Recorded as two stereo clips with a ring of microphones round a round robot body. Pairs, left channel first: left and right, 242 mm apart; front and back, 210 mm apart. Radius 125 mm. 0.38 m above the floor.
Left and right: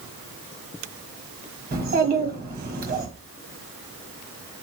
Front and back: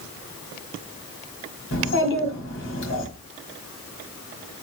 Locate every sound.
1.7 s a child speaking: 35° right, 1.6 m